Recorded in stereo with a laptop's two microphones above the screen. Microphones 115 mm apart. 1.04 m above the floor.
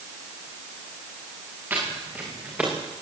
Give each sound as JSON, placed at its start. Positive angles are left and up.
{"t": 1.7, "sound": "footsteps", "side_deg": -20, "distance_m": 7.5}